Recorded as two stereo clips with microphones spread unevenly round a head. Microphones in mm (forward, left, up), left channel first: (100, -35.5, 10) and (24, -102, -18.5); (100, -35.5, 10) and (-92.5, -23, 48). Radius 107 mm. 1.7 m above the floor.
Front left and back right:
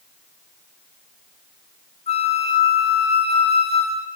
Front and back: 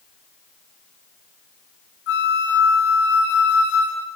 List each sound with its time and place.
2.1 s a flute: 30° left, 3 m